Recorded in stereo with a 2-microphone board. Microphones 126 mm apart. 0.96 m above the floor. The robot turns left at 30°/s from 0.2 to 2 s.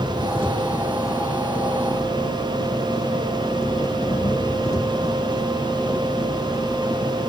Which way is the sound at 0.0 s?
155° right.